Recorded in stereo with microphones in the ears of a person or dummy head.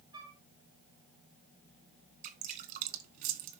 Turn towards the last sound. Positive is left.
turn(degrees=-50)  # may be behind; listen again after turning